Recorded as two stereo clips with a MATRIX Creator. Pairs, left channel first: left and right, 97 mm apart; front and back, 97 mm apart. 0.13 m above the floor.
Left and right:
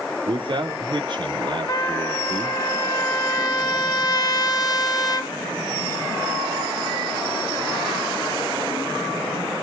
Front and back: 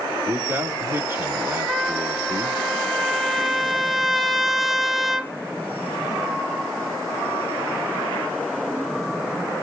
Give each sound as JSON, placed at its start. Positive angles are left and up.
{"t": 0.3, "sound": "a man speaking", "azimuth_deg": -115, "distance_m": 3.0}
{"t": 1.7, "sound": "a trumpet", "azimuth_deg": 95, "distance_m": 1.4}